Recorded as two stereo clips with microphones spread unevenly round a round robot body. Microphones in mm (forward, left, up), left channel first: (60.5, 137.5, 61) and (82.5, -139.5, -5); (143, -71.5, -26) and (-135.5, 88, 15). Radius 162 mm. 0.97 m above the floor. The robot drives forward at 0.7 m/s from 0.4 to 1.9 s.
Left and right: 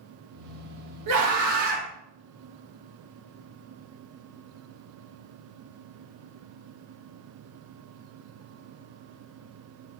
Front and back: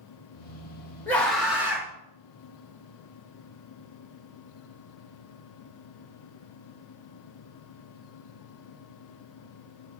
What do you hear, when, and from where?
1.1 s a scream: 110° right, 1.7 m; by 1.9 s 130° right, 2.0 m